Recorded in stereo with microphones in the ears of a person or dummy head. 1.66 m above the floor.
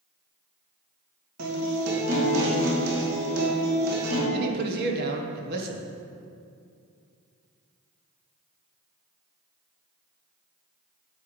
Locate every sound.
1.4 s a guitar: 80° right, 3 m
4.3 s a man speaking: 60° right (ahead or behind), 1.5 m